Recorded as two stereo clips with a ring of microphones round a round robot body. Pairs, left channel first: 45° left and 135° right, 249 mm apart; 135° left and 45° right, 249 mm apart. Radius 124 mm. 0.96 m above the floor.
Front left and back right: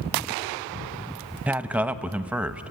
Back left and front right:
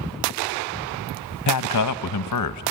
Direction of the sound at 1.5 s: 140° left.